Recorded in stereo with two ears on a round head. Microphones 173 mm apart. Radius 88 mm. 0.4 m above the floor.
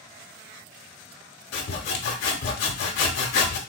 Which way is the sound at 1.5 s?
60° left (ahead or behind).